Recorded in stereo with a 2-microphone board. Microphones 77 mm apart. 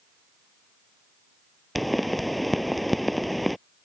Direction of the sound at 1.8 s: Centre (ahead or behind).